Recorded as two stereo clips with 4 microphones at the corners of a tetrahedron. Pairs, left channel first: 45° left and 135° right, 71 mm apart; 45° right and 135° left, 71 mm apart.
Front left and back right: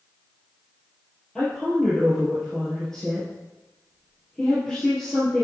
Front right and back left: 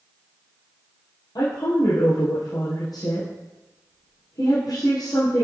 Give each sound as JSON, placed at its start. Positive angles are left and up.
{"t": 1.4, "sound": "a woman speaking", "azimuth_deg": -35, "distance_m": 3.5}